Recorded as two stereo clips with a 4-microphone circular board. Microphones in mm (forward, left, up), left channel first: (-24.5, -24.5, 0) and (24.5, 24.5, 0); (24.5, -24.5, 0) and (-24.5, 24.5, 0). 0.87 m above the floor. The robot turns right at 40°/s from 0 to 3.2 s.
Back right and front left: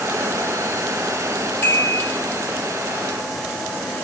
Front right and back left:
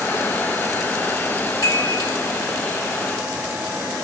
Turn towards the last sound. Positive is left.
turn(degrees=-15)